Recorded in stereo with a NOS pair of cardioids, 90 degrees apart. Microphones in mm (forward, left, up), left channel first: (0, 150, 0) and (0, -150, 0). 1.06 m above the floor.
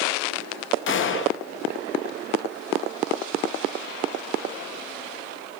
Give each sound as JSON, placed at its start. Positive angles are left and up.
{"t": 0.9, "sound": "a gunshot", "azimuth_deg": 45, "distance_m": 0.6}